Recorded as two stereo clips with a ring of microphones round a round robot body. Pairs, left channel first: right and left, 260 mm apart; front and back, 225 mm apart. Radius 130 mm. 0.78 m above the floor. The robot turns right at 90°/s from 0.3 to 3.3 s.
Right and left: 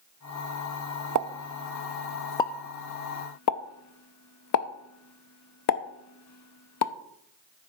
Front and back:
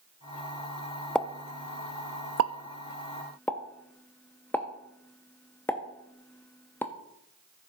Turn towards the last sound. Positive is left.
turn(degrees=-80)